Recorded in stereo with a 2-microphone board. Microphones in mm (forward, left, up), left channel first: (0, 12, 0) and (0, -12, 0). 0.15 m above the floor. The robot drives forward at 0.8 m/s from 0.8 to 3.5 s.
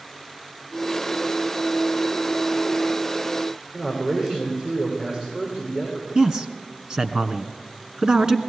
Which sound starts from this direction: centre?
A man speaking, at 3.7 s.